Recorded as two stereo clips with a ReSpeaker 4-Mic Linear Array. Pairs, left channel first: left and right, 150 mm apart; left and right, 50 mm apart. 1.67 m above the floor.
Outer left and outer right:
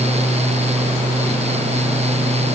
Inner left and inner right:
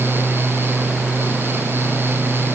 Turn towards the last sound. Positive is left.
No sound to turn to.